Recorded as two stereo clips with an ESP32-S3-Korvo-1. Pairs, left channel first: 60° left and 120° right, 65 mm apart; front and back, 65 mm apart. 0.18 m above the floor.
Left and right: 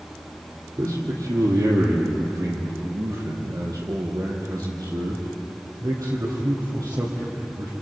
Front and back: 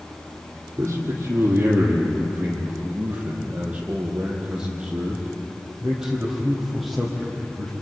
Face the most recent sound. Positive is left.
turn(degrees=-85)